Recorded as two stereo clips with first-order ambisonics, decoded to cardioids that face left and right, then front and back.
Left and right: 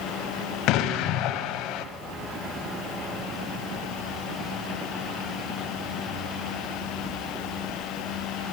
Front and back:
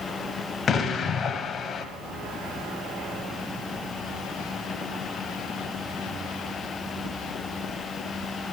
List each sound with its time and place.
0.7 s an explosion: 65° left, 0.8 m